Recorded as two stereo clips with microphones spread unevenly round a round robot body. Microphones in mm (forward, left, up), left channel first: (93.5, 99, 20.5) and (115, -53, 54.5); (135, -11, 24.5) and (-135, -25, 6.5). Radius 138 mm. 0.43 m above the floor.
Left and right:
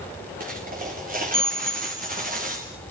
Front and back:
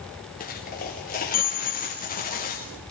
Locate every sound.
0.4 s a dropped coin: 55° right, 4.5 m